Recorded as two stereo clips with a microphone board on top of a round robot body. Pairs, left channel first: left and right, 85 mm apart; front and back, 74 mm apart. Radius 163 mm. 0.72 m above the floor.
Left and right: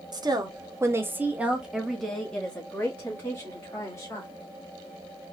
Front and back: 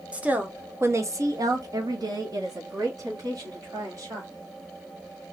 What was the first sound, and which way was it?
A woman speaking, 110° right.